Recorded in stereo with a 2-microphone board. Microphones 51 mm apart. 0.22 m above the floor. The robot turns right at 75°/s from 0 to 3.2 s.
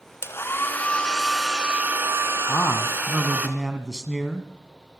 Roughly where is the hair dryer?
Left.